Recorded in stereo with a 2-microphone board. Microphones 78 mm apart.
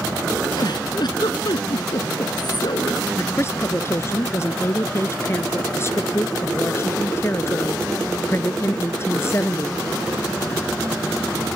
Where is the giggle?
70° left (ahead or behind).